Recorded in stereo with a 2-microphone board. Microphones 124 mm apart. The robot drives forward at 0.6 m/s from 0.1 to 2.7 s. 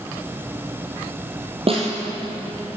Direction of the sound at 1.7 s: 50° right (ahead or behind).